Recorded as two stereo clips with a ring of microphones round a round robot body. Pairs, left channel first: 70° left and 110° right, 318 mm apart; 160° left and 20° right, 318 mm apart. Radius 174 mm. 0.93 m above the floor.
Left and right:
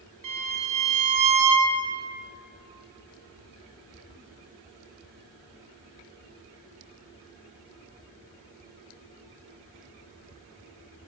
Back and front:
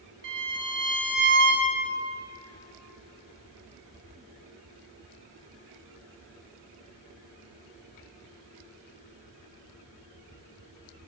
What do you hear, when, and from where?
0.2 s a violin: 75° right, 1.1 m